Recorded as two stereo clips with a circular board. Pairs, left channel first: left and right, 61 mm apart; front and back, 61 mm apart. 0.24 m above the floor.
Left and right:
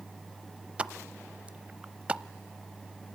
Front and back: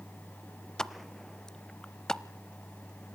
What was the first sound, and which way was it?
A pop, 65° right.